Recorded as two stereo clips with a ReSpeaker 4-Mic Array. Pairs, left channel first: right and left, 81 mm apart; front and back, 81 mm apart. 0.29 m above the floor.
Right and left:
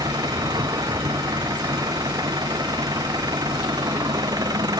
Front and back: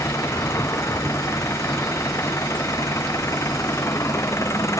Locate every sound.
0.0 s an engine running: 55° left